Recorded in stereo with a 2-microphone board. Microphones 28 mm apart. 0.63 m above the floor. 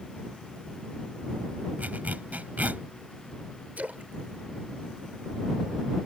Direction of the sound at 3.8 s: 70° right (ahead or behind).